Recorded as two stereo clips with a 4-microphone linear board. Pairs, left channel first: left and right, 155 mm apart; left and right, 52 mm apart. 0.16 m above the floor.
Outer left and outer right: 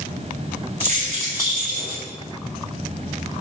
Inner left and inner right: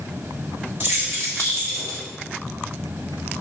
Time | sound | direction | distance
0.8 | keys jangling | 45° right (ahead or behind) | 1.7 m